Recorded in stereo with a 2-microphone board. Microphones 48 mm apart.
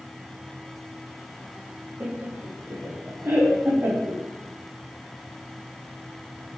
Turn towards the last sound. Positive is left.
turn(degrees=-60)  # may be behind; listen again after turning